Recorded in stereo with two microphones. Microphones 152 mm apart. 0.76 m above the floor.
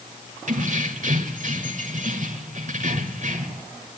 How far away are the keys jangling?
About 2.0 m.